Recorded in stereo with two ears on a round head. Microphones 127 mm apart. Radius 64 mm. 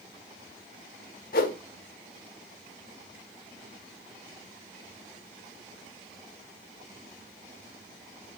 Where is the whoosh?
70° left (ahead or behind), 1.2 m.